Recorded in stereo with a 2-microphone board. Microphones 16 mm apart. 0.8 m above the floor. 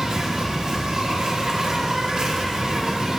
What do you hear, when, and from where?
0.0 s an insect: 55° right (ahead or behind), 1.5 m